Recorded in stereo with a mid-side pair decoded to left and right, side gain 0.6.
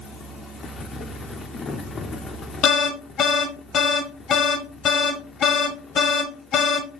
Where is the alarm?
50° left, 1.1 m.